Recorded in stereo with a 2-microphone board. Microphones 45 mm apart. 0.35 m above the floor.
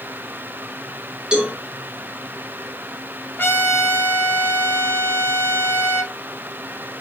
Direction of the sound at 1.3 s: 20° right (ahead or behind).